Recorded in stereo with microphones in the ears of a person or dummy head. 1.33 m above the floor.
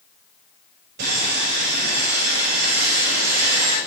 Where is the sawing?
60° right (ahead or behind), 5 m.